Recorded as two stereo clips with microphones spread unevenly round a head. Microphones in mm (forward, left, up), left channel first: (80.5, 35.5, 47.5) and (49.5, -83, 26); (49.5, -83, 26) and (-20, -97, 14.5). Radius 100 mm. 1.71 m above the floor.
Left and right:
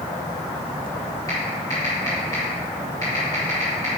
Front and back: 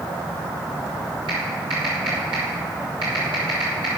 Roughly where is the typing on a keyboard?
Behind left.